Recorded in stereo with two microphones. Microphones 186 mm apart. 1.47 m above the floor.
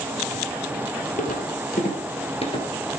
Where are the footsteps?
45° left (ahead or behind), 2.5 m; by 2.7 s 30° left (ahead or behind), 1.6 m.